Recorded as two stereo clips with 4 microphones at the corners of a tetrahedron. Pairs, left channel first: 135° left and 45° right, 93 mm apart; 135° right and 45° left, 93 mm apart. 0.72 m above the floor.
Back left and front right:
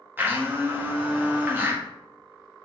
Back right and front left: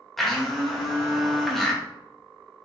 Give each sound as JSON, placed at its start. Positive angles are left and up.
{"t": 0.2, "sound": "a blender", "azimuth_deg": -50, "distance_m": 1.0}